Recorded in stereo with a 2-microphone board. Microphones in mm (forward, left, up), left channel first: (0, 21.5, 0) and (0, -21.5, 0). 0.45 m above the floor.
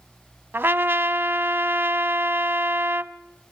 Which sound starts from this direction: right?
A trumpet, at 0.5 s.